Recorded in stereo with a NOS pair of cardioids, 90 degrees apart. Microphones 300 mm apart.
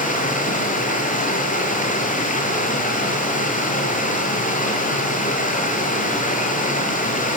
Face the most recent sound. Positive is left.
turn(degrees=25)